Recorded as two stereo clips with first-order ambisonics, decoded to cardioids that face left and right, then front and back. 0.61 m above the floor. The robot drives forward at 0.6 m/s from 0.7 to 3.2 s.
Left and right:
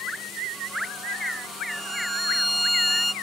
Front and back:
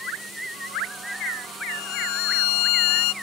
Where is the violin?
5° left.